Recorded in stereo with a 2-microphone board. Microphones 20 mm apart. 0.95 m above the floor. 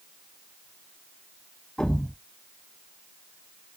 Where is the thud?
40° left (ahead or behind), 1.5 m.